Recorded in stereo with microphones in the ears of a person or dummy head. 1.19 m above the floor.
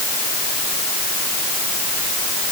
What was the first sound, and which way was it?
Only background noise.